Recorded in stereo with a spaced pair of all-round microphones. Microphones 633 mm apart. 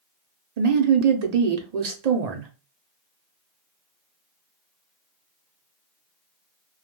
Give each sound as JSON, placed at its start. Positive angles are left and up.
{"t": 0.6, "sound": "a woman speaking", "side_deg": -75, "distance_m": 0.7}